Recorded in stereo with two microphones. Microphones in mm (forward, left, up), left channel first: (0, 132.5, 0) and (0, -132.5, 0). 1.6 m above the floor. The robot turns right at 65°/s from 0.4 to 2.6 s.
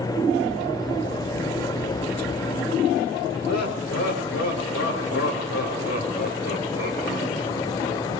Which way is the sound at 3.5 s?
75° left (ahead or behind).